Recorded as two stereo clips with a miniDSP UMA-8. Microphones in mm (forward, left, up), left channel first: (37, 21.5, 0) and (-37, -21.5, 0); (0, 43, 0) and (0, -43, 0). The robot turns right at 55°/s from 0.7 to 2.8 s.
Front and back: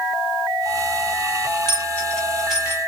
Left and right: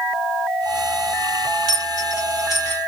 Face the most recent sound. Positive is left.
turn(degrees=145)